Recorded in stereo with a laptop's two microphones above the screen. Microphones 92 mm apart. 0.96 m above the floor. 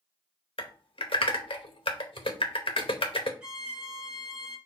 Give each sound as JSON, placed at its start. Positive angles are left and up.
{"t": 0.6, "sound": "typing on a keyboard", "side_deg": 80, "distance_m": 0.7}
{"t": 3.4, "sound": "a violin", "side_deg": -10, "distance_m": 0.8}